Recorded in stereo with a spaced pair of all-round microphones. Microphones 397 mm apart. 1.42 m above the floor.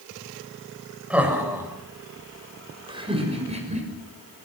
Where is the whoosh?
I don't hear a whoosh.